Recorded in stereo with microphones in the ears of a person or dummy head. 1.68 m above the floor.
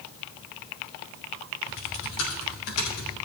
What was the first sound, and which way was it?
Typing on a keyboard, 70° left (ahead or behind).